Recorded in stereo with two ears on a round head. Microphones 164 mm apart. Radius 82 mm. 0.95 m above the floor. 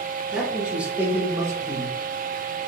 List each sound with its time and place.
0.3 s a man speaking: 5° right (ahead or behind), 1.4 m; by 2.6 s 30° right (ahead or behind), 0.9 m